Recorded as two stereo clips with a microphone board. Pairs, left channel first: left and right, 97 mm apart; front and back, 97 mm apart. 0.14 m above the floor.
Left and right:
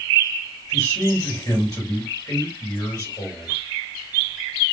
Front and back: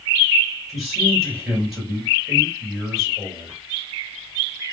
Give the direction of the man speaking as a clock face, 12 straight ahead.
9 o'clock.